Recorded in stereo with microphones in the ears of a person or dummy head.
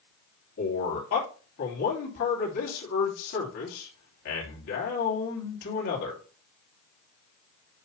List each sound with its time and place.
0.6 s a man speaking: 65° left (ahead or behind), 3 m